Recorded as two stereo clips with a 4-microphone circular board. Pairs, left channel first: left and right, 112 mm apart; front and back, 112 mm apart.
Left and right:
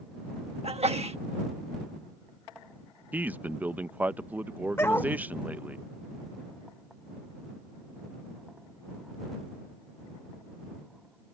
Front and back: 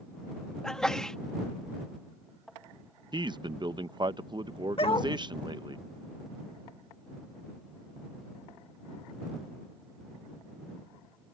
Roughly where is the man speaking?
Behind.